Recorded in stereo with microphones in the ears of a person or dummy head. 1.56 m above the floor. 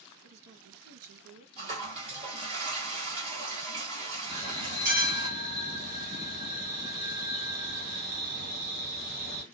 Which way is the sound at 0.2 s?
80° right.